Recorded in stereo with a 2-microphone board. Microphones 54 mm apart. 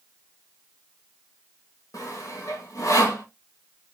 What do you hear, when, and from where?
1.9 s sawing: 85° left, 0.8 m